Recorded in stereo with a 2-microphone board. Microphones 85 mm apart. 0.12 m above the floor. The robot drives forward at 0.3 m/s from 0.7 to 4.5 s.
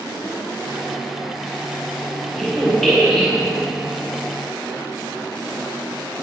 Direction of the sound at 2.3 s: Centre (ahead or behind).